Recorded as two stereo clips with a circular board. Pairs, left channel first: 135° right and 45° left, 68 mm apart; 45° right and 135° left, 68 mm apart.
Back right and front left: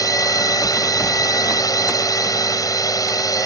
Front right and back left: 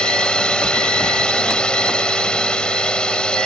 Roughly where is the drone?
Behind right.